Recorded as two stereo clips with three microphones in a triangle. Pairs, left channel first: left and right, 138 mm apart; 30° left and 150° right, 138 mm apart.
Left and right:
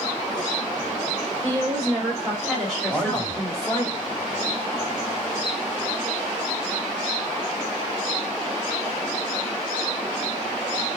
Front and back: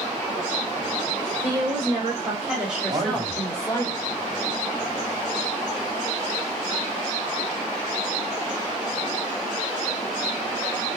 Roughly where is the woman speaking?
Behind right.